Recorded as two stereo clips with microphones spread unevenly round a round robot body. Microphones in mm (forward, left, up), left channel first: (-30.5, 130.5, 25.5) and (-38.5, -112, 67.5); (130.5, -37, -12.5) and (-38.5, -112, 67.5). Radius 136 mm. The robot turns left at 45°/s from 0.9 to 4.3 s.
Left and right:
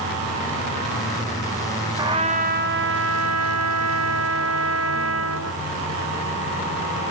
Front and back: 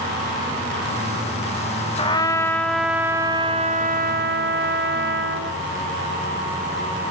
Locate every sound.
2.0 s a trumpet: 15° right, 1.1 m; by 5.6 s 115° right, 1.1 m